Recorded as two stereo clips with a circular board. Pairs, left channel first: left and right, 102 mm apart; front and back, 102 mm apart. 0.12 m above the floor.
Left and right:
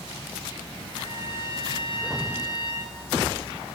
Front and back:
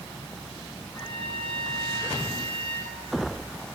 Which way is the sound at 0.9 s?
35° right.